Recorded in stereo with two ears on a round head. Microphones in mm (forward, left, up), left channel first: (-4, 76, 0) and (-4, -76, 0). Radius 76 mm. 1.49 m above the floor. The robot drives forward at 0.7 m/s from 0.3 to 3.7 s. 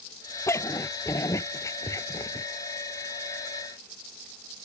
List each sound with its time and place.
0.5 s a dog barking: 15° left (ahead or behind); by 2.5 s 20° left (ahead or behind)